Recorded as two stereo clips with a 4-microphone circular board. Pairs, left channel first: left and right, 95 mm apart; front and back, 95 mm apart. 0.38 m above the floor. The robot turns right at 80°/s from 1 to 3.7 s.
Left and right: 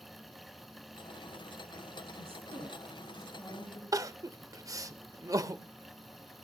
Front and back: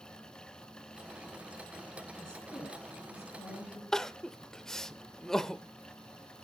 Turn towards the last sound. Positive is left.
turn(degrees=-80)